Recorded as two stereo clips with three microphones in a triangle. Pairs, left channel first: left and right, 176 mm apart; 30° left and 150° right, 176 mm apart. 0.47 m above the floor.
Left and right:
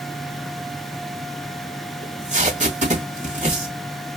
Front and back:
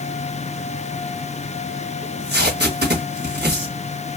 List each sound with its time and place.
2.0 s tape being pulled: 135° right, 2.0 m